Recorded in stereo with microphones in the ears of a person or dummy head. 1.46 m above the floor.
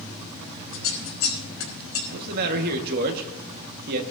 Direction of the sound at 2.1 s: 55° right (ahead or behind).